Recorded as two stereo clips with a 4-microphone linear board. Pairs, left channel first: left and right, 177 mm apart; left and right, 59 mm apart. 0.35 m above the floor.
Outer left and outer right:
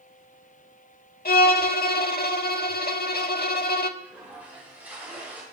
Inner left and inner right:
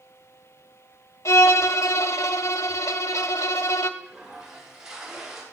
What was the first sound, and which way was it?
A violin, 60° left (ahead or behind).